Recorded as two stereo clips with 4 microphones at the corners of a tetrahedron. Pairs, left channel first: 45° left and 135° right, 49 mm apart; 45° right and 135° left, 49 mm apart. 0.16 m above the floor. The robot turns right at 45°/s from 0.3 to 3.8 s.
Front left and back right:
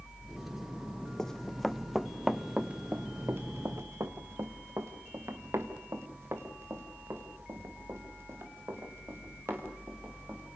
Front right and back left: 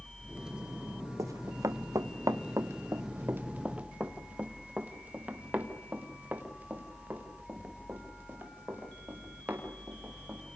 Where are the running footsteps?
125° left, 0.7 m; by 10.4 s 170° right, 5 m.